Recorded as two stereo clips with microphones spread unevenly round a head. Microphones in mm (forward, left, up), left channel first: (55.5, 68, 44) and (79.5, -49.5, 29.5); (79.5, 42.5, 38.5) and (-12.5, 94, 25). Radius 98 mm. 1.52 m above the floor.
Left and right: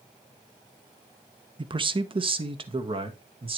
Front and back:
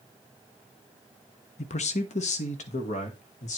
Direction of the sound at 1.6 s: 30° right.